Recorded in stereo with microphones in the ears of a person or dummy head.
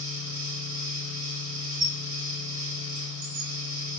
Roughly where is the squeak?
Right.